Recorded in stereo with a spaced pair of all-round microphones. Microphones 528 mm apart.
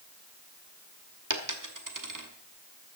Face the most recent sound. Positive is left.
turn(degrees=-35)  # may be behind; listen again after turning